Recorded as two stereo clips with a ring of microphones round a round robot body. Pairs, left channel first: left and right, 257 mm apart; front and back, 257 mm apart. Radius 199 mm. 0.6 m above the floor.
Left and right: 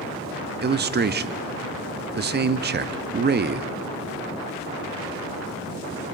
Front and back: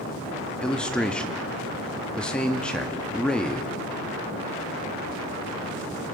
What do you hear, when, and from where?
0.6 s a man speaking: 85° right, 0.7 m